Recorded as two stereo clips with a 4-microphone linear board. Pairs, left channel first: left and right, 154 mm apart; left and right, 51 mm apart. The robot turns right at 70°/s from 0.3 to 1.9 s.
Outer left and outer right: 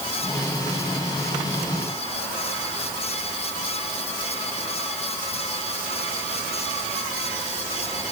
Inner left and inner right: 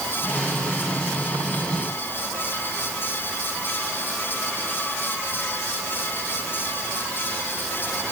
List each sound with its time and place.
Only background noise.